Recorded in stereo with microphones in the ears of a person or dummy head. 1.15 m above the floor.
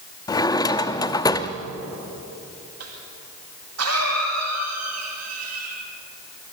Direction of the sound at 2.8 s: 75° right (ahead or behind).